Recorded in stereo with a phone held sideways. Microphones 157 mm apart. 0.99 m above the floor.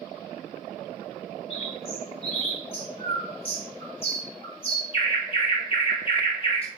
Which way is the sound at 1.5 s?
35° left (ahead or behind).